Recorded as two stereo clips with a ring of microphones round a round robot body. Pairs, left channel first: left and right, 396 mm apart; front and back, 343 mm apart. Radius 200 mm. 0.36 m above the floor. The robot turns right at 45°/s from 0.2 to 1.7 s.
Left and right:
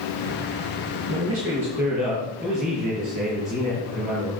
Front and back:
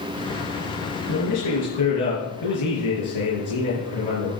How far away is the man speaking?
About 5 m.